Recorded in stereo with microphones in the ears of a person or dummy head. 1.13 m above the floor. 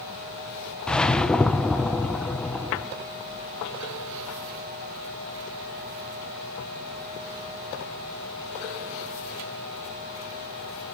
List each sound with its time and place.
0.9 s a whoosh: 5° left (ahead or behind), 0.5 m